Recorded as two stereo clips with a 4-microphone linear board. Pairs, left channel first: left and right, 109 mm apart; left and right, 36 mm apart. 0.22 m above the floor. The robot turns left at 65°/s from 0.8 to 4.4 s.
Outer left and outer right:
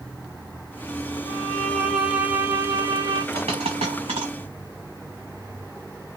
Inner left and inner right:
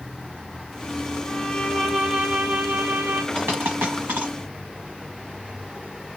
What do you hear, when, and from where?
1.2 s a violin: 50° left, 1.2 m; by 3.2 s 80° right, 1.2 m
3.3 s a dropped coin: 70° right (ahead or behind), 1.3 m; by 4.3 s 45° right (ahead or behind), 1.3 m